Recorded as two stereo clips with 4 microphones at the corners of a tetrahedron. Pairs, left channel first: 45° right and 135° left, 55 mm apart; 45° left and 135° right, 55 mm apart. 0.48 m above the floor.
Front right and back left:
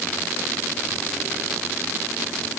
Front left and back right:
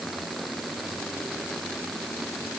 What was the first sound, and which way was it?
Only background noise.